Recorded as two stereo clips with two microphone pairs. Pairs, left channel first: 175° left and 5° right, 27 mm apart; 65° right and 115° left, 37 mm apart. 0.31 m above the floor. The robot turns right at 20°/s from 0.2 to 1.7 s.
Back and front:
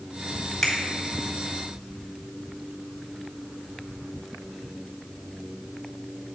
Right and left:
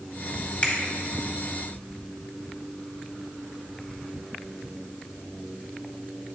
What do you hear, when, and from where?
0.6 s a finger snap: 110° right, 1.7 m